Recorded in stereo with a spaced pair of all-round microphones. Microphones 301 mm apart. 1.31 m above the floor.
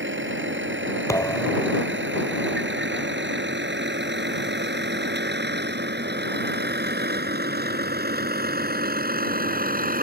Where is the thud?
10° left (ahead or behind).